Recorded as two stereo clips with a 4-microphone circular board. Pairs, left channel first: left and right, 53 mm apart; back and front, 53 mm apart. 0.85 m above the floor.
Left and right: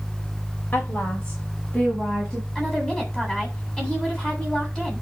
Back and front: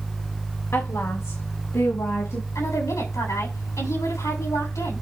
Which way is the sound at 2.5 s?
170° left.